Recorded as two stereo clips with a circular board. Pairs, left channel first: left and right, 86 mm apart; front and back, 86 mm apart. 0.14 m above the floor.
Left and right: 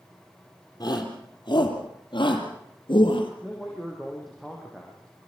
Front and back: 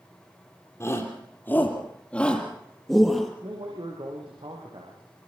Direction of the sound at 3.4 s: Straight behind.